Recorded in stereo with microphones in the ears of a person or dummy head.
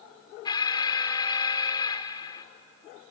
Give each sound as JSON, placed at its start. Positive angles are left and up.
{"t": 0.5, "sound": "an alarm", "side_deg": 25, "distance_m": 0.6}